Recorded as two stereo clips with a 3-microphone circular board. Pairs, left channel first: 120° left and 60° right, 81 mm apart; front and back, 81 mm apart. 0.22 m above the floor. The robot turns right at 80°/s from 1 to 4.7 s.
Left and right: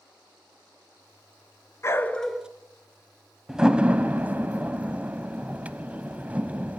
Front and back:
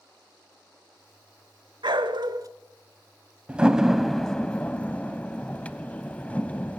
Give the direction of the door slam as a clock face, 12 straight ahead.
4 o'clock.